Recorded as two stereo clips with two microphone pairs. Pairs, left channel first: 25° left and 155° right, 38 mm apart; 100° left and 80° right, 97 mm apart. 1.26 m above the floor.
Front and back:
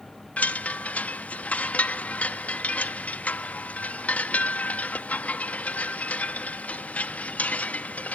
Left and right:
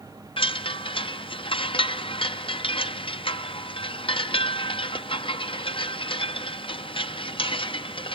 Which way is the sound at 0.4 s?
70° left.